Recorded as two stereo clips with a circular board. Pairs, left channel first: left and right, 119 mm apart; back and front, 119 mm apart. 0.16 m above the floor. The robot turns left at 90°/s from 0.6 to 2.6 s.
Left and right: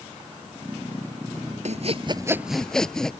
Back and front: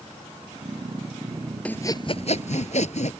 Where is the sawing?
100° right; by 3.1 s 175° left.